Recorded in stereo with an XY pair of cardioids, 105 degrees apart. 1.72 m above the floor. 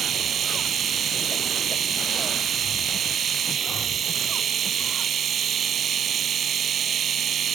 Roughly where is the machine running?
Ahead right.